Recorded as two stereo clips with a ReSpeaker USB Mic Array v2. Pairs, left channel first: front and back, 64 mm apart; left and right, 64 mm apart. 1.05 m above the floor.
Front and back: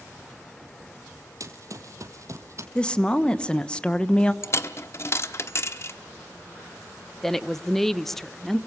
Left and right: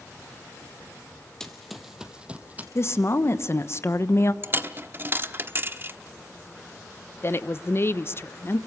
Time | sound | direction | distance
1.4 | running footsteps | 170° left | 1.8 m
2.8 | a woman speaking | 65° left | 1.1 m
4.4 | a dropped coin | 40° right | 0.9 m
7.2 | a woman speaking | 80° left | 0.7 m